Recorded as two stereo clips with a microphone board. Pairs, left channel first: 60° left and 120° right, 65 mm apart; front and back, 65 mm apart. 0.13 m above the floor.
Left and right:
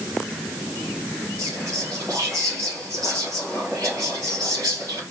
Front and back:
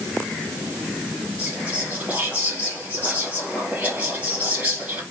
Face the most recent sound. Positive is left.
turn(degrees=-125)